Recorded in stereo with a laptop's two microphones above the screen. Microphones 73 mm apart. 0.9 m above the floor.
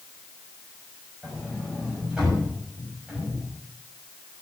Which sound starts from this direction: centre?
A sliding door, at 1.2 s.